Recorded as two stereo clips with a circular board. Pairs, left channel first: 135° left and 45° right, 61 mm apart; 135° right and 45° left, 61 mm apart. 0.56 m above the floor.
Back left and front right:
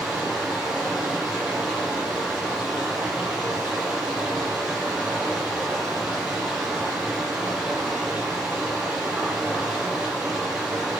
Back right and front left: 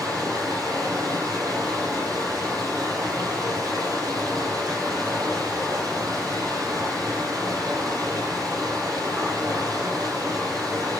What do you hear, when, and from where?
0.0 s running water: 30° left, 8.5 m